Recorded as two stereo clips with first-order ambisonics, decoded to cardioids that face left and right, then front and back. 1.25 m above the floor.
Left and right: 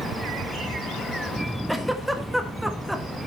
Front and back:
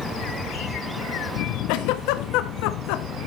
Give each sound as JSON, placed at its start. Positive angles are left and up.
{"t": 1.7, "sound": "a giggle", "azimuth_deg": 0, "distance_m": 1.0}